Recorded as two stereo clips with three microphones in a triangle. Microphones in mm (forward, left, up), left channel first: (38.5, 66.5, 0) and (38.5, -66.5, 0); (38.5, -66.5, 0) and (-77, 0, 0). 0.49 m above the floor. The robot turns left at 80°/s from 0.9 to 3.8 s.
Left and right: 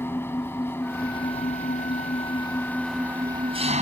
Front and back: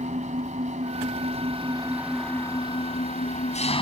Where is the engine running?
160° left; by 3.8 s 70° right.